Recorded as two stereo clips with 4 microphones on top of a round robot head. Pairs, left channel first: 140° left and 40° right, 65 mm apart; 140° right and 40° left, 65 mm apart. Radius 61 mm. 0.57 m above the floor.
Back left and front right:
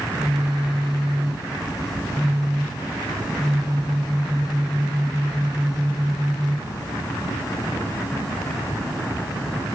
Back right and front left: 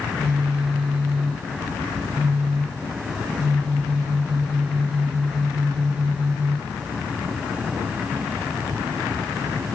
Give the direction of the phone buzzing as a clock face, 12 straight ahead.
11 o'clock.